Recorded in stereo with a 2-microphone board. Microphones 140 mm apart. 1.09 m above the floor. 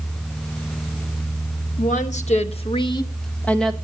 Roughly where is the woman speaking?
Left.